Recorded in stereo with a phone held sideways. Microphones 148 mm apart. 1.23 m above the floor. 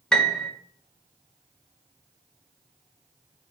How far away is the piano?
About 1.2 m.